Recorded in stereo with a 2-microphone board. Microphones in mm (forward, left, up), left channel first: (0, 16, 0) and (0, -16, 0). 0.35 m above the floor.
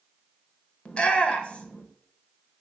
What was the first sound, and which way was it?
A shout, 35° left (ahead or behind).